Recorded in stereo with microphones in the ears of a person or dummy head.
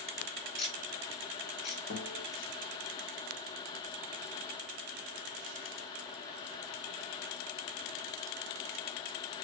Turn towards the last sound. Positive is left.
turn(degrees=50)  # may be behind; listen again after turning